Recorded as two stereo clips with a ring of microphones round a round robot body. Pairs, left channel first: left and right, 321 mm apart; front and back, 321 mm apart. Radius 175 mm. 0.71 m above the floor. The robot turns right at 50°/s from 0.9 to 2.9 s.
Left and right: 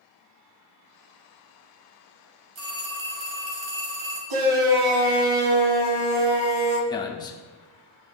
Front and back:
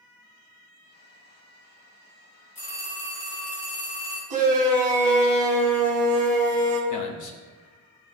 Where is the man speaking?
15° left, 1.3 m.